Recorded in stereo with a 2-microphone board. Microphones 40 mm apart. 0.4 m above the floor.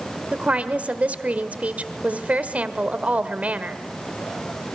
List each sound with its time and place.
0.3 s a woman speaking: 40° right (ahead or behind), 1.4 m